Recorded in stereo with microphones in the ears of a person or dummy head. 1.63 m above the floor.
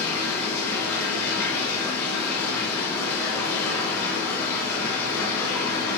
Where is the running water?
15° left (ahead or behind), 0.8 m.